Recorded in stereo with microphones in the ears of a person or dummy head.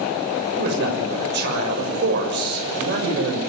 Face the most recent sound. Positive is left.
turn(degrees=-65)  # may be behind; listen again after turning